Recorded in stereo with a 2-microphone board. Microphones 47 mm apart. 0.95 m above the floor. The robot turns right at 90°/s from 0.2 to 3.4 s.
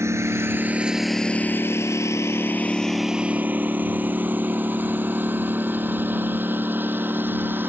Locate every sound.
0.0 s a lawn mower: 80° right; by 7.7 s 50° right (ahead or behind)